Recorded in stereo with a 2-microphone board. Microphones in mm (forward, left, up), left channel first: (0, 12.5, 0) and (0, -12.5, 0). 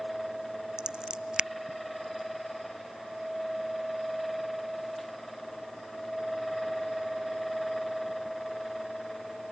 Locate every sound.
0.8 s scissors: 40° right (ahead or behind)